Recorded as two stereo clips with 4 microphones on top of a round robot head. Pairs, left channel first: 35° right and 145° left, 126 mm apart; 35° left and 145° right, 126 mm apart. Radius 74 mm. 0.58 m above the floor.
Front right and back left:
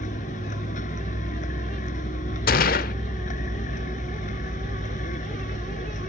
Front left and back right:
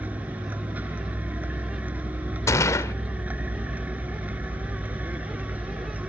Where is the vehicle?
65° right.